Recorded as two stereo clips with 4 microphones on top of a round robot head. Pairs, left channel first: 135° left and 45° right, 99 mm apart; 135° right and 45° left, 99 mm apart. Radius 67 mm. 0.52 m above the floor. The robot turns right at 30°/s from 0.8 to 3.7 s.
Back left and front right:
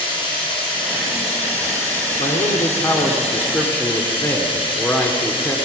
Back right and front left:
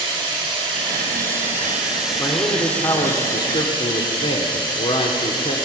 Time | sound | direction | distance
0.0 | running water | 90° left | 5 m
2.2 | a man speaking | 165° left | 1.4 m